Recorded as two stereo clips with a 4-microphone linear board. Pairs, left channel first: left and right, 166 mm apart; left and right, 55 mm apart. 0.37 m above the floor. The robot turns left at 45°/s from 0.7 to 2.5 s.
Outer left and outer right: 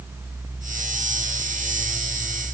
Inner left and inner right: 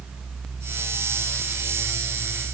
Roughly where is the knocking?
No knocking in this recording.